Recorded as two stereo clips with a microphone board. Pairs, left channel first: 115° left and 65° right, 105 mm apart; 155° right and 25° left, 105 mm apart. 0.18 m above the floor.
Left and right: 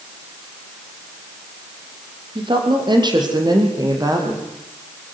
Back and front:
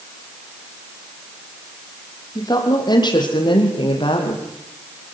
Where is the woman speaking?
105° right, 5.5 m; by 4.5 s 125° right, 5 m.